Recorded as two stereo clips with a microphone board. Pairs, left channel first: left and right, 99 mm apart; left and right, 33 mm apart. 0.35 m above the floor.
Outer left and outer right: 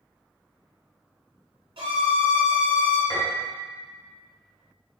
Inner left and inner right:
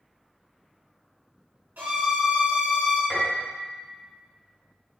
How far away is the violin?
About 1.2 m.